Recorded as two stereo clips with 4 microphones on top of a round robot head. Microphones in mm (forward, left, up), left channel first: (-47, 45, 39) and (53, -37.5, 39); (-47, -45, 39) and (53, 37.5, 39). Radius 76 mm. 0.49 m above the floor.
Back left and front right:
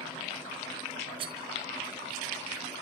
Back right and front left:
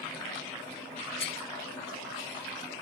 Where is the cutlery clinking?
95° right, 2.5 m.